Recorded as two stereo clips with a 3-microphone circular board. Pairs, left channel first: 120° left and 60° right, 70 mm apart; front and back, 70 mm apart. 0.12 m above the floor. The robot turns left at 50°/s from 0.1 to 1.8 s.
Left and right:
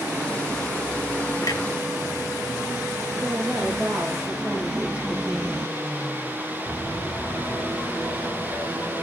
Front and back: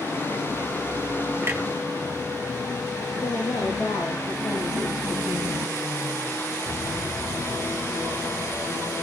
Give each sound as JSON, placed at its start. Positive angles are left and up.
{"t": 1.4, "sound": "a clunk", "azimuth_deg": 130, "distance_m": 1.9}
{"t": 3.2, "sound": "a woman speaking", "azimuth_deg": 5, "distance_m": 6.5}